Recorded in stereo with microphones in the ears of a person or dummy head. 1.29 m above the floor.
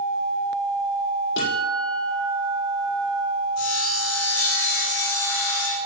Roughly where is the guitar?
Left.